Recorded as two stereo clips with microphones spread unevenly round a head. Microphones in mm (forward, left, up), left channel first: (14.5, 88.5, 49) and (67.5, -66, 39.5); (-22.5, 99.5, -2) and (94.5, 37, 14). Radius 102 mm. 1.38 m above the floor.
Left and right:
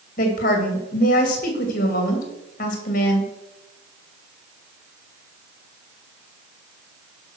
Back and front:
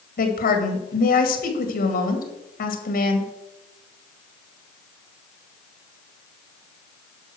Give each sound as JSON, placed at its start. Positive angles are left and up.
{"t": 0.2, "sound": "a woman speaking", "azimuth_deg": 155, "distance_m": 2.0}